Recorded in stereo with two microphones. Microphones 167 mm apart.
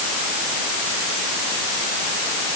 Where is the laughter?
I don't hear laughter.